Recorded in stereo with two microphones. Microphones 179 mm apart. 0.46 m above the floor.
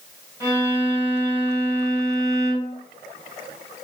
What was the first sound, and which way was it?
A violin, 15° right (ahead or behind).